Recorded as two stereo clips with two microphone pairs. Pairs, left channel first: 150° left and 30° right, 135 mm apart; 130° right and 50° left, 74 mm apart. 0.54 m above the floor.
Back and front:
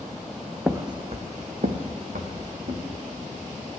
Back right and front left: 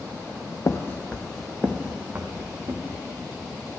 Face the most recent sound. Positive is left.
turn(degrees=-5)